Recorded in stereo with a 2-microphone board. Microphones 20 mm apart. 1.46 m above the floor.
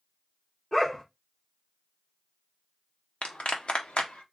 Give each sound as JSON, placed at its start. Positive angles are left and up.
{"t": 0.7, "sound": "a dog barking", "side_deg": 25, "distance_m": 1.7}
{"t": 3.2, "sound": "a clap", "side_deg": 70, "distance_m": 1.0}